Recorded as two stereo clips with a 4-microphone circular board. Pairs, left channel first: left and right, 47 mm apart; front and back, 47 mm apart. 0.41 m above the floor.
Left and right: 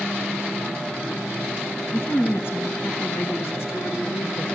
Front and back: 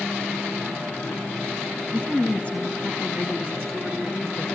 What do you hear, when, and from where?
1.9 s a woman speaking: 60° left, 4.5 m; by 4.5 s 85° left, 4 m